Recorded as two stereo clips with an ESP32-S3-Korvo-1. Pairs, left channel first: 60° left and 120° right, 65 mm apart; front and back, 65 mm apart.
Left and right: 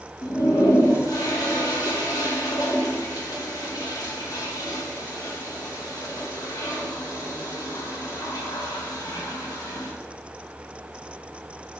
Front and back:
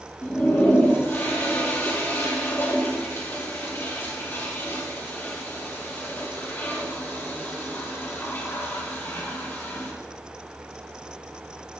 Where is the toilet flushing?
55° left, 2.5 m.